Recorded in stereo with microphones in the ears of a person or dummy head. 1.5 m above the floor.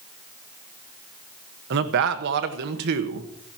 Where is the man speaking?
65° right (ahead or behind), 1.4 m.